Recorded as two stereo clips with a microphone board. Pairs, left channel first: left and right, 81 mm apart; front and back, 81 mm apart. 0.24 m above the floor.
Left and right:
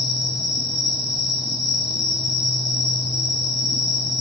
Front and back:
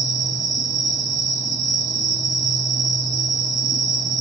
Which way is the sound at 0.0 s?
175° right.